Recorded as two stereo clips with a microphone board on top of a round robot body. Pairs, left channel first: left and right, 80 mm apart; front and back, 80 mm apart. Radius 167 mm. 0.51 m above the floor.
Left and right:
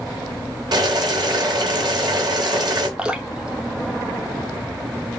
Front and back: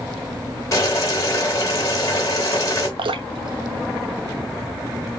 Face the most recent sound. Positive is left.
turn(degrees=-165)